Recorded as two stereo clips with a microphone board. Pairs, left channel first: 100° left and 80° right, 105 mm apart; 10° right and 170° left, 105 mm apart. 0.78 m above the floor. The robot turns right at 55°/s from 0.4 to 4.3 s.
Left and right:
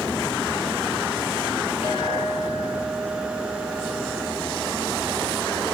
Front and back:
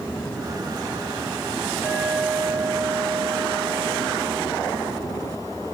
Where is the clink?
95° left, 9 m; by 4.9 s 130° right, 9 m.